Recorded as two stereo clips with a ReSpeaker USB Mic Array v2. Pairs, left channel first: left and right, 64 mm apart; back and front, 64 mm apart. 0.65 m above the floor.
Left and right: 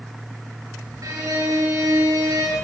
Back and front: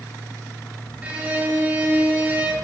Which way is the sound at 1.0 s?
65° right.